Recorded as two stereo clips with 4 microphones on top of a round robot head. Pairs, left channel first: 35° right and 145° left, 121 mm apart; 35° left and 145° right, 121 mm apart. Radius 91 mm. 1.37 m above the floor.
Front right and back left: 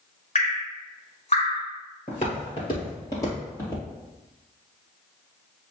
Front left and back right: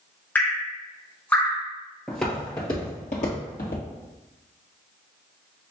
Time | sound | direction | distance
0.3 | dripping | 35° right | 0.6 m
2.1 | footsteps | 55° right | 1.6 m